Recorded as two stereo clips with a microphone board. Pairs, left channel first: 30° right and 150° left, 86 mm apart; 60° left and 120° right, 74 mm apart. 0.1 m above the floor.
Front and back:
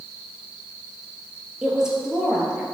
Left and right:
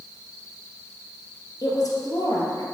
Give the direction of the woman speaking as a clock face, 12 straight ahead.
10 o'clock.